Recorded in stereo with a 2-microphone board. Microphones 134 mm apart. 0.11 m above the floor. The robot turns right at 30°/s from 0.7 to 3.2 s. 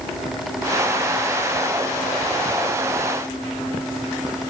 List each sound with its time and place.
Only background noise.